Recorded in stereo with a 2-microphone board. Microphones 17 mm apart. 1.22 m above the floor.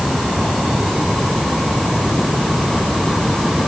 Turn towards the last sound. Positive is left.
No sound to turn to.